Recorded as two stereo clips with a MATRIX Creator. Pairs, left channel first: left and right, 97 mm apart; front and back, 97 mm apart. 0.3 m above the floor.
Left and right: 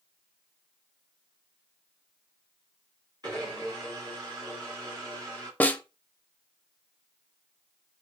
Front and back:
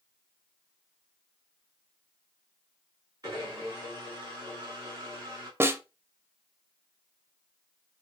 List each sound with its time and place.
3.2 s a blender: 135° right, 3 m
5.6 s a snare drum: 145° left, 0.5 m